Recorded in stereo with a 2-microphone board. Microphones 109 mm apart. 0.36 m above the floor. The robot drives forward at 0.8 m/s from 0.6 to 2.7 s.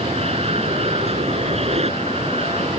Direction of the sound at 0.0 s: 70° right (ahead or behind).